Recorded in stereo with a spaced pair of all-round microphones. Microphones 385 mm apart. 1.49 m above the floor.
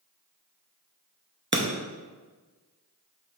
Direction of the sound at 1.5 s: 30° right (ahead or behind).